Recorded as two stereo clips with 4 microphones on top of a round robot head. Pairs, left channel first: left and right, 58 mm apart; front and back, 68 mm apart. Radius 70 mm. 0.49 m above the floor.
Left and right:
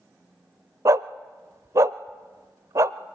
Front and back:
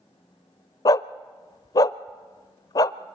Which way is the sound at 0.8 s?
45° right.